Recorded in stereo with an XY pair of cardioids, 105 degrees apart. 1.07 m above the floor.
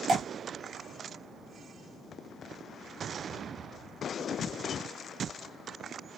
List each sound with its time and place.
0.1 s dripping: 60° right, 0.8 m